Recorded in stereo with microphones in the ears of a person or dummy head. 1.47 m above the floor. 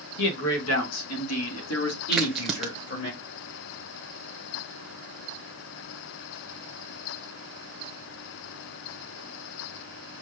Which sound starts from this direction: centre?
A crack, at 2.1 s.